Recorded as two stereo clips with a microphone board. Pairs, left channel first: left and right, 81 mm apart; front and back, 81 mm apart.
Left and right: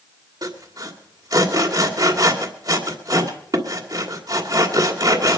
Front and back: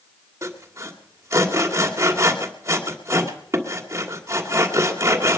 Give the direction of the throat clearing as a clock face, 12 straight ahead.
I don't hear throat clearing.